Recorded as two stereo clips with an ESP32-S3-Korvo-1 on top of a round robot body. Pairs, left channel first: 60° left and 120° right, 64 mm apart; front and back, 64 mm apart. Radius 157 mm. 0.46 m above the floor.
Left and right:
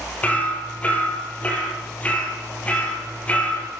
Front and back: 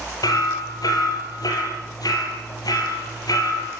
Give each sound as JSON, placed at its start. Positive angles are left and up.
{"t": 0.2, "sound": "hammering", "azimuth_deg": -10, "distance_m": 5.5}